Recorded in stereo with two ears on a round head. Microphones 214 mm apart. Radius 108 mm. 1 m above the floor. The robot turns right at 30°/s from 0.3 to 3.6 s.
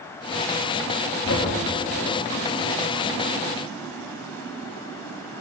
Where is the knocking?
50° left (ahead or behind), 1.6 m; by 1.5 s 55° left (ahead or behind), 1.6 m.